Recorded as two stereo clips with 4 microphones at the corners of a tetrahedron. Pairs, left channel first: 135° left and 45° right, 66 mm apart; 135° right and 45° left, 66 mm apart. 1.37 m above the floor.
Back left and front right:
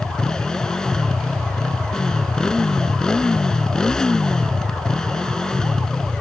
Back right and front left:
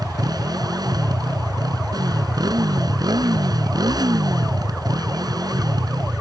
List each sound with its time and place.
0.0 s a motorcycle: 55° left